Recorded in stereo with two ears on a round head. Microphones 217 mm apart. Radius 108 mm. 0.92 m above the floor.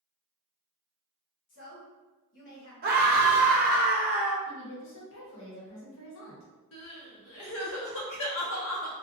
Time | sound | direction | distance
1.5 | a woman speaking | 50° left (ahead or behind) | 1.3 m
2.8 | a scream | 40° right (ahead or behind) | 0.7 m
4.5 | a woman speaking | 55° left (ahead or behind) | 0.9 m
6.7 | crying | 60° left (ahead or behind) | 0.7 m